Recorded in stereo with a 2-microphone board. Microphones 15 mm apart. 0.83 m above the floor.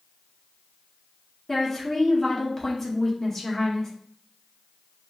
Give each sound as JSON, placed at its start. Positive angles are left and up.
{"t": 1.5, "sound": "a woman speaking", "side_deg": 25, "distance_m": 1.2}